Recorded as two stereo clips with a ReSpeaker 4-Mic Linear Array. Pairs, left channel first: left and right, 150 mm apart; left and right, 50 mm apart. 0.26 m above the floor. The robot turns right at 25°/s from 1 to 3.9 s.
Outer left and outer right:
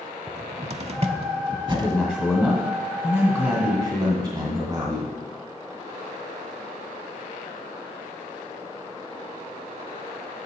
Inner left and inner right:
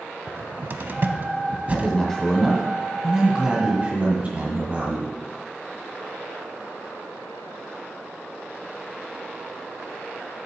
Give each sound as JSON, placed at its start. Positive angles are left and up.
{"t": 0.3, "sound": "a cupboard door", "side_deg": -45, "distance_m": 0.6}
{"t": 1.7, "sound": "a man speaking", "azimuth_deg": 175, "distance_m": 2.0}